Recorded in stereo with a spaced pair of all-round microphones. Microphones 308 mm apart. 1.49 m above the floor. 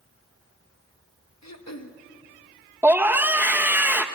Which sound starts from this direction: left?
Throat clearing, at 1.4 s.